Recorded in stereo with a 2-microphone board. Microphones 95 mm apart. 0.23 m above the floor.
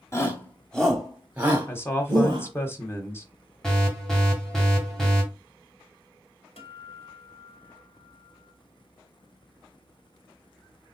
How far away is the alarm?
About 2.0 m.